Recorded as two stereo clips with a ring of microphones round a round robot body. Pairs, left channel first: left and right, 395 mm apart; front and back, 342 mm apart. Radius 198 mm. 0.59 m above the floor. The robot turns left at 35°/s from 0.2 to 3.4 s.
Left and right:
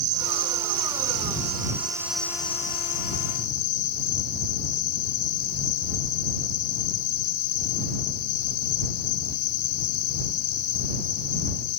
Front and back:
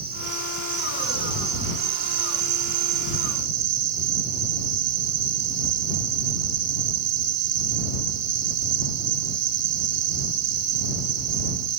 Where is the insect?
110° right; by 11.8 s 135° left.